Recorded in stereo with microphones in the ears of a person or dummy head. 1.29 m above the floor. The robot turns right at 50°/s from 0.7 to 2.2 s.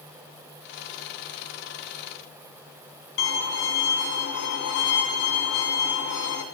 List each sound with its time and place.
3.2 s a violin: 70° left (ahead or behind), 3 m